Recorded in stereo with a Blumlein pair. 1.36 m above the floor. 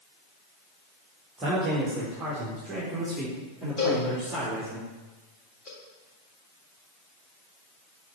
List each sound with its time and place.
1.4 s a man speaking: 20° right, 1.7 m; by 4.8 s 5° right, 4 m
3.8 s a cowbell: 25° left, 3.5 m